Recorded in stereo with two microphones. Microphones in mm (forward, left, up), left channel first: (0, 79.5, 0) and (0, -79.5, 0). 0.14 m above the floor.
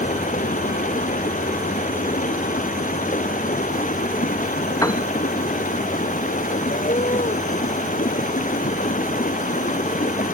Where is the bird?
45° left (ahead or behind).